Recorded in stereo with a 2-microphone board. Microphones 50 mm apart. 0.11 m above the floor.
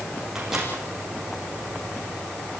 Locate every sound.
0.3 s a microwave: 10° right (ahead or behind), 6 m